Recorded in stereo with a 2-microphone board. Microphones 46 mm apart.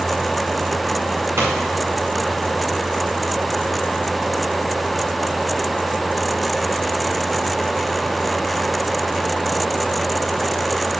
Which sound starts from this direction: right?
A pop, at 1.4 s.